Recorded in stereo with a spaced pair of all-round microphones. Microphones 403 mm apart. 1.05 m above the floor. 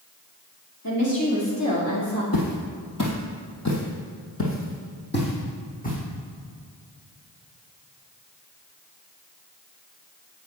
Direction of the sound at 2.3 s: 55° left (ahead or behind).